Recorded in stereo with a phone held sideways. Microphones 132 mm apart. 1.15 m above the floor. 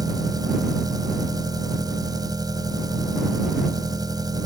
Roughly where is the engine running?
Right.